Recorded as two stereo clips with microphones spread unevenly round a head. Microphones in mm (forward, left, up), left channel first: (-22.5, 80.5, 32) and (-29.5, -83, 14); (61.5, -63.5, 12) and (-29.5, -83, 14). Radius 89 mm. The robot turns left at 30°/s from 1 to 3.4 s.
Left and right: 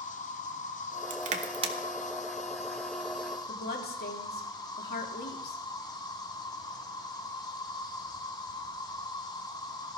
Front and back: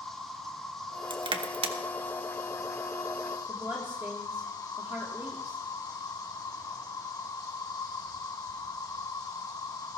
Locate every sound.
0.0 s an insect: 100° left, 1.7 m; by 10.0 s 25° left, 1.7 m
1.1 s crushing: 135° right, 1.4 m; by 1.8 s 155° right, 1.4 m
3.5 s a woman speaking: 115° left, 3 m